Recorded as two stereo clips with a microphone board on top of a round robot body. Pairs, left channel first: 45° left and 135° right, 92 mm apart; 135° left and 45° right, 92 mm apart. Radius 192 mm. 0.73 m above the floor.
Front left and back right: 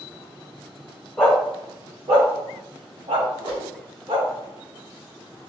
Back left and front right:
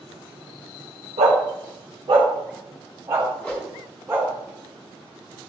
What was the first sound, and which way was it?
A dog barking, 40° right.